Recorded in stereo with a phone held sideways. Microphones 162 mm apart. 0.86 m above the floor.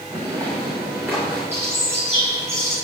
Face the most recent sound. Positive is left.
turn(degrees=-15)  # may be behind; listen again after turning